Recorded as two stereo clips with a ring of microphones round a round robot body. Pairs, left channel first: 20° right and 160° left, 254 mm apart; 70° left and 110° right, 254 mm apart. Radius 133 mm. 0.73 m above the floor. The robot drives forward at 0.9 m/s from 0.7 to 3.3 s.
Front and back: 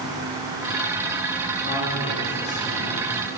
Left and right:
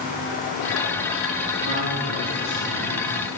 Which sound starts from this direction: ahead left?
A man speaking, at 1.6 s.